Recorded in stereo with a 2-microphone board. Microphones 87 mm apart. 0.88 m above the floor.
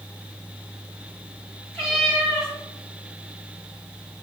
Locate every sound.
1.7 s a cat meowing: centre (ahead or behind), 2 m